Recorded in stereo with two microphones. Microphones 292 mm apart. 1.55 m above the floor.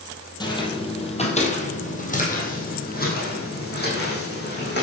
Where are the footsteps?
15° left (ahead or behind), 3 m; by 4.8 s 35° left (ahead or behind), 5.5 m.